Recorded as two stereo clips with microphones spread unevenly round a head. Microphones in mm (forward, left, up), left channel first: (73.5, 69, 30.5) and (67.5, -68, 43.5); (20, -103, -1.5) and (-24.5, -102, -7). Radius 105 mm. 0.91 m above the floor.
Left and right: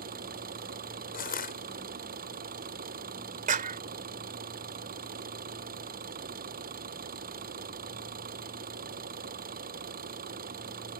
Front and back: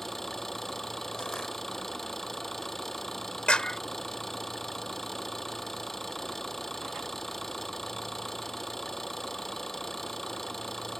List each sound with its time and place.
0.0 s an engine running: 85° right
1.1 s crushing: 80° left
3.5 s a clap: 70° right